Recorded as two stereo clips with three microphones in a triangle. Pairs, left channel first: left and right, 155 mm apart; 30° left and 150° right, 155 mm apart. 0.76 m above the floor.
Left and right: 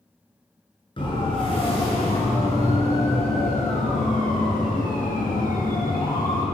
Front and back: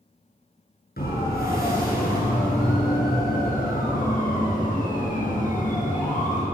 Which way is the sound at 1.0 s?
35° left.